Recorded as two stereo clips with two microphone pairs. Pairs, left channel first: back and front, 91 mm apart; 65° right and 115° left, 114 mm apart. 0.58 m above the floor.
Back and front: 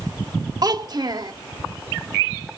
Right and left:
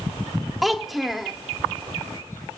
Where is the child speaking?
25° left, 1.3 m.